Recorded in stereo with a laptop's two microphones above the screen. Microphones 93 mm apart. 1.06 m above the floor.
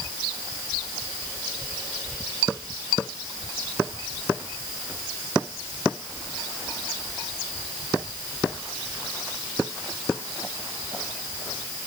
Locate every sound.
Only background noise.